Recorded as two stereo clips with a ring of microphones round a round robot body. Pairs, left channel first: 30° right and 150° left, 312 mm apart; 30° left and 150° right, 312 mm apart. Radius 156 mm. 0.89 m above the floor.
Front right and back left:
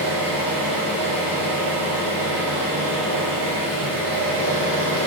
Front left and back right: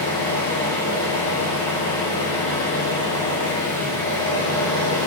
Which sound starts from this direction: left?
An engine running, at 0.0 s.